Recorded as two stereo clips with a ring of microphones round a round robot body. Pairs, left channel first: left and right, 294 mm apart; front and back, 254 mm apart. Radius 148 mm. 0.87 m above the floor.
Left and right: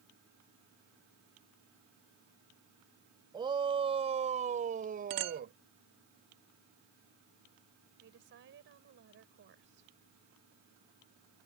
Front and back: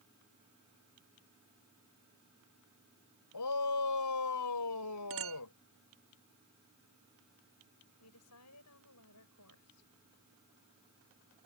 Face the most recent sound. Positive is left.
turn(degrees=-35)